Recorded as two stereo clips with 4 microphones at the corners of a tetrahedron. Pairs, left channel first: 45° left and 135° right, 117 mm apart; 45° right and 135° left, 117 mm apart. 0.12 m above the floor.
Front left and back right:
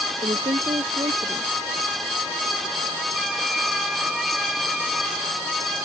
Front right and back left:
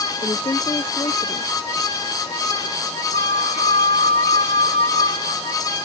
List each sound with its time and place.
0.2 s a woman speaking: 100° right
3.1 s a flute: 50° right